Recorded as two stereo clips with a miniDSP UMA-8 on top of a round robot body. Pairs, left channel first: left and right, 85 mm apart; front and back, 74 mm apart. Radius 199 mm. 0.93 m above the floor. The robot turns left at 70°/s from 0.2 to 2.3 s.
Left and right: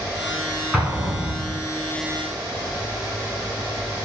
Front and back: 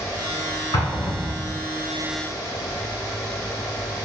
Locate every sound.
0.7 s an explosion: 5° right, 1.2 m; by 1.6 s 65° right, 1.2 m